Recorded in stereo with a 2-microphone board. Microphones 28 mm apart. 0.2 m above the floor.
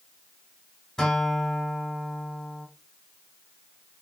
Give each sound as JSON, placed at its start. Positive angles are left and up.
{"t": 1.0, "sound": "a guitar", "side_deg": 20, "distance_m": 1.4}